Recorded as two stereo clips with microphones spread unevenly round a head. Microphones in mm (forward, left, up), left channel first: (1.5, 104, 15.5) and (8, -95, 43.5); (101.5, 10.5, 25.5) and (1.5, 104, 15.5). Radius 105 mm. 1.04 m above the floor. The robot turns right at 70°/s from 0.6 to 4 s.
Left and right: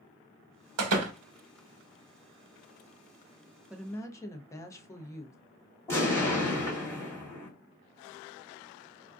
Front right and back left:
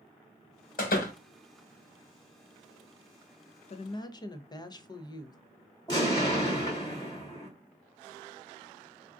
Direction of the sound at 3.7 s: 5° right.